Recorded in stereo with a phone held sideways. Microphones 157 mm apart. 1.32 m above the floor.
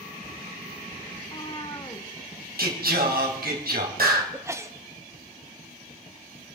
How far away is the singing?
About 3 m.